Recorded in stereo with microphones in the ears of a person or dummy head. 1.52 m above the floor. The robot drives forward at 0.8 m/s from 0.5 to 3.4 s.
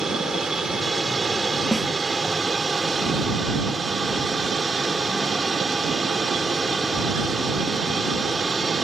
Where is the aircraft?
5° right (ahead or behind).